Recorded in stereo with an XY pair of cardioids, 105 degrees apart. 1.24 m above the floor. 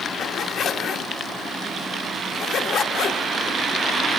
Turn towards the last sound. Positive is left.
turn(degrees=65)